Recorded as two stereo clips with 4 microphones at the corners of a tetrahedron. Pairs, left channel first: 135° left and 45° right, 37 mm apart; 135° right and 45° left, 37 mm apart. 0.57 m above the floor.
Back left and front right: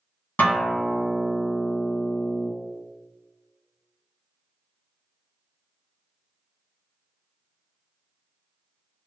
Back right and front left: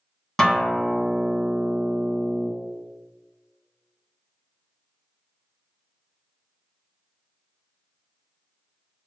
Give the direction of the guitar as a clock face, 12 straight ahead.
7 o'clock.